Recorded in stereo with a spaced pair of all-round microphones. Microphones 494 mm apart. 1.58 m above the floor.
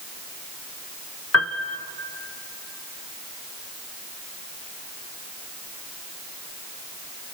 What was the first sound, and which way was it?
A piano, 30° left (ahead or behind).